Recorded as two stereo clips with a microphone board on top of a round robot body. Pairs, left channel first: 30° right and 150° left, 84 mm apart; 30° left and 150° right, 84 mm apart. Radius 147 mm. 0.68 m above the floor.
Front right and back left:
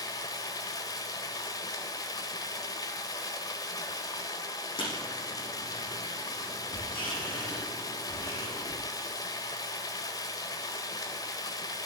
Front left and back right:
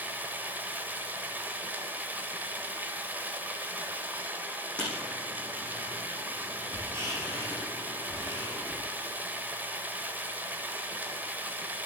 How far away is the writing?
About 7.5 m.